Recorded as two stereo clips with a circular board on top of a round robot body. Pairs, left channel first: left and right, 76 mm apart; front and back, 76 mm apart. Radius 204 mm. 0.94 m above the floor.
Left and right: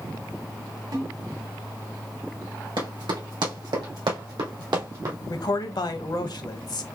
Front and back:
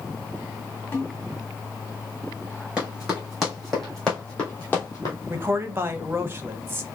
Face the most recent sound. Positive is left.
turn(degrees=120)